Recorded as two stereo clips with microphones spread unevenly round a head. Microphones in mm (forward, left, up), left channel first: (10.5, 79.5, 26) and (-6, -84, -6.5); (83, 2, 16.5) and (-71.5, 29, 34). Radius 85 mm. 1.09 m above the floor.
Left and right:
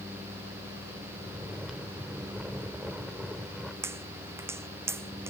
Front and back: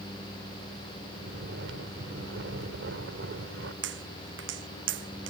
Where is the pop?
170° right.